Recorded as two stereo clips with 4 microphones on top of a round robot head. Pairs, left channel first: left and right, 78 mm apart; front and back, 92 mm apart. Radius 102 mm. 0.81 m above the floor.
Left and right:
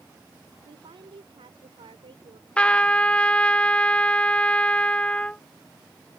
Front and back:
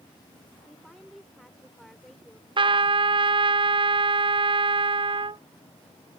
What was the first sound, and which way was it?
A woman speaking, 90° right.